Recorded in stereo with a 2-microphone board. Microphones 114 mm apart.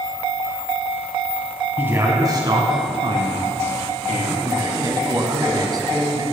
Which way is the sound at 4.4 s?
35° right (ahead or behind).